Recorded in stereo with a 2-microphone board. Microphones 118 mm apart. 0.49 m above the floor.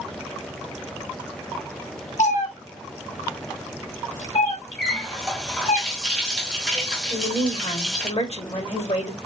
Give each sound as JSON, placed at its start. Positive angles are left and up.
{"t": 2.2, "sound": "a cat meowing", "side_deg": 85, "distance_m": 1.2}
{"t": 4.8, "sound": "a running tap", "side_deg": 5, "distance_m": 1.6}
{"t": 7.1, "sound": "a woman speaking", "side_deg": 60, "distance_m": 1.6}